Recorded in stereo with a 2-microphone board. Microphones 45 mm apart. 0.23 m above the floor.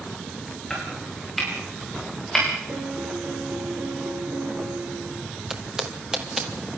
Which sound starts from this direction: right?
A piano, at 2.7 s.